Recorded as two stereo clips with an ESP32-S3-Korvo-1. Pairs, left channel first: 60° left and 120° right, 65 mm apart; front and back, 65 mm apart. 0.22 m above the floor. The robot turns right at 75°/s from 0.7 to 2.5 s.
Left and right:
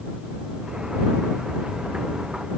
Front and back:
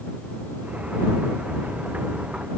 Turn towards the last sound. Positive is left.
No sound to turn to.